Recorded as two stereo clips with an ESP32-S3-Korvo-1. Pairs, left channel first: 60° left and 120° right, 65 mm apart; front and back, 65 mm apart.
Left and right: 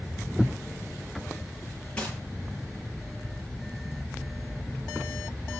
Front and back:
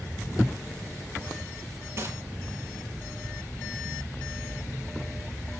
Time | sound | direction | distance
2.0 | a gunshot | 135° left | 6 m